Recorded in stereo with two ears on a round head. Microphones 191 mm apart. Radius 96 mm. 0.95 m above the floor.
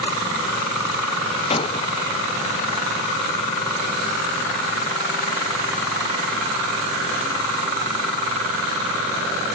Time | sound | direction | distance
1.5 | breaking glass | 25° left (ahead or behind) | ?